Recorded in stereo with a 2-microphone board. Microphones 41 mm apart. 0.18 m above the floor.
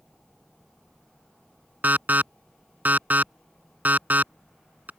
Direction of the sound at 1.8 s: 45° right (ahead or behind).